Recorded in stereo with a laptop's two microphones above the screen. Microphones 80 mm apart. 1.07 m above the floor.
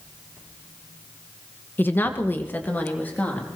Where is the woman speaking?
25° left (ahead or behind), 0.8 m.